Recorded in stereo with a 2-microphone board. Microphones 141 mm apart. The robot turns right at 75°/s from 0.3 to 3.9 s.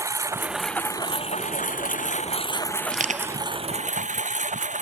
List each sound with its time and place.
0.0 s a lawn mower: 25° right; by 4.8 s 115° right
2.9 s crushing: 80° right; by 3.4 s 45° right (ahead or behind)